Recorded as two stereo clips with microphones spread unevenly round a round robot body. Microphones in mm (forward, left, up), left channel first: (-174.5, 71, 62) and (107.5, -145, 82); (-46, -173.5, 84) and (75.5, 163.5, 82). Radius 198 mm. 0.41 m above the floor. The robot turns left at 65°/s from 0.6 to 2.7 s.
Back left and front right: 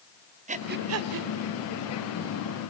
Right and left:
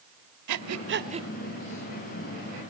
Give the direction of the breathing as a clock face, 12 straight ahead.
11 o'clock.